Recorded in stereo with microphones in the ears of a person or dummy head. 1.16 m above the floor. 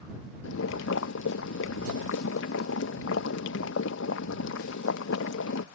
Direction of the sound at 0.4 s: 75° left (ahead or behind).